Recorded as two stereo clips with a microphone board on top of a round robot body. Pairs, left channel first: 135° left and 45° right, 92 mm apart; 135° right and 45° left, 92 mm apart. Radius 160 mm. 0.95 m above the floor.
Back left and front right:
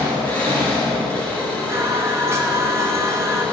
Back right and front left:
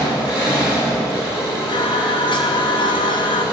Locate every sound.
0.0 s an engine running: 155° right, 6.5 m
1.7 s singing: 105° right, 0.9 m